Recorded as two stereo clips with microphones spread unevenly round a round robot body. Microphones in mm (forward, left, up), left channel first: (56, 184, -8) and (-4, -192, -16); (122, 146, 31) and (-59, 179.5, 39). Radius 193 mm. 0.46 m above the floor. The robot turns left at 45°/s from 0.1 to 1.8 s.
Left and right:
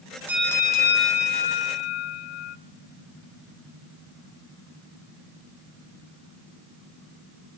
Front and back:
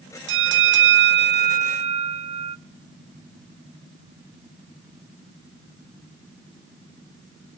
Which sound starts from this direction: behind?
A bell, at 0.3 s.